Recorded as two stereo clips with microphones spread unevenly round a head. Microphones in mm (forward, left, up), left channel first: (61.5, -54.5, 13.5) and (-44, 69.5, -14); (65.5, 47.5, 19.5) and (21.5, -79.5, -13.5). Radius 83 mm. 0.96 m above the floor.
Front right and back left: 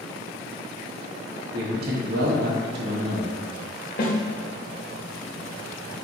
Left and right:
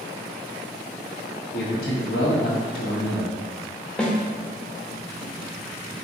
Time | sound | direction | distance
1.5 | a man speaking | 110° left | 0.9 m
4.0 | a snare drum | 15° right | 0.8 m